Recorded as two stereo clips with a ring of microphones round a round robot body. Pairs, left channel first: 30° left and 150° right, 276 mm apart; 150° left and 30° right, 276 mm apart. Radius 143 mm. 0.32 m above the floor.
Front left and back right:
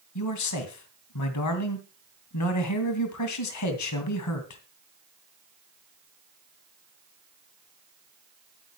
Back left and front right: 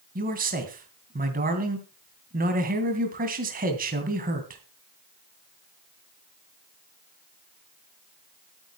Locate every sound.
0.1 s a man speaking: 25° left, 2.5 m